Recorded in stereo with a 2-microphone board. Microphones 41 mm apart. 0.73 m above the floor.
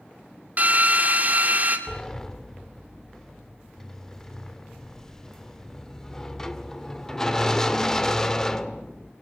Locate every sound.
0.6 s a drill: 45° right (ahead or behind), 2.5 m
1.9 s a sliding door: 15° left (ahead or behind), 1.0 m